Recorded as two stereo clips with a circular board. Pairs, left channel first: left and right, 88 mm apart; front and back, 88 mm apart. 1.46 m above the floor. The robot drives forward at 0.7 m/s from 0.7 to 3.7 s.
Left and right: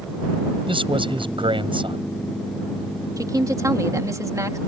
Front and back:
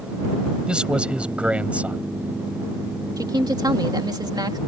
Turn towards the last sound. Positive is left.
turn(degrees=-140)